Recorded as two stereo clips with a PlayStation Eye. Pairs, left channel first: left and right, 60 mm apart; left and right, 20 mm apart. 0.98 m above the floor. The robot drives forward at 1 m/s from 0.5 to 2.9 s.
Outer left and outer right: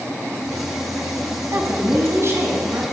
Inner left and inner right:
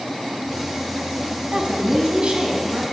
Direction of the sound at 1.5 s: 50° right (ahead or behind).